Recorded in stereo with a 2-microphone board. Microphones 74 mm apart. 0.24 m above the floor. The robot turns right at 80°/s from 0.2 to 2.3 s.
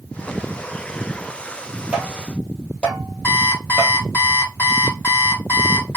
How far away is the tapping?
About 1.8 m.